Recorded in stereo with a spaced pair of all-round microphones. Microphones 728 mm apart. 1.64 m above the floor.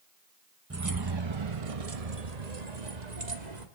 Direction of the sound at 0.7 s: 20° right (ahead or behind).